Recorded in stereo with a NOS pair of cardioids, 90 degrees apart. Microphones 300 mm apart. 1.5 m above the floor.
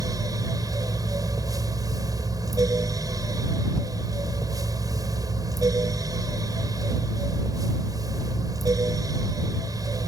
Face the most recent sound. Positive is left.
turn(degrees=-10)